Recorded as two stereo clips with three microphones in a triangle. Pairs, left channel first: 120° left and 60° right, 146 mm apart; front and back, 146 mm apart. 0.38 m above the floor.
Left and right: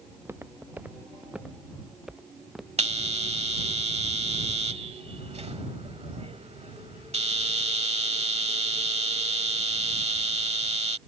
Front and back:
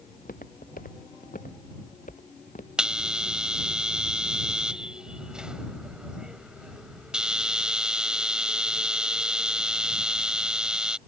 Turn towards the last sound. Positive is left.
turn(degrees=-95)